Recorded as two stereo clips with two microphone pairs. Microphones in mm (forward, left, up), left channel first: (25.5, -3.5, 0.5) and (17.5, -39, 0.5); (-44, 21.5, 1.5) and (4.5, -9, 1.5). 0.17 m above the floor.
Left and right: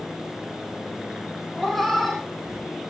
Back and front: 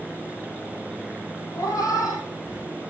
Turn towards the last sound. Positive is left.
turn(degrees=165)